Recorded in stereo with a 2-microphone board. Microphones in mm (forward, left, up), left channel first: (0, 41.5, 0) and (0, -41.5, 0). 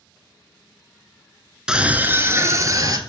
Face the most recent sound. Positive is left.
turn(degrees=-45)  # may be behind; listen again after turning